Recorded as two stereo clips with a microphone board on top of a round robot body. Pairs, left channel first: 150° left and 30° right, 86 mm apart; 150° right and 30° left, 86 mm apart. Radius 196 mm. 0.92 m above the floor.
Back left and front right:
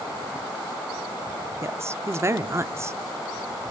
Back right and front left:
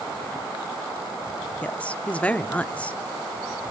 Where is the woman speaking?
80° right, 1.0 m.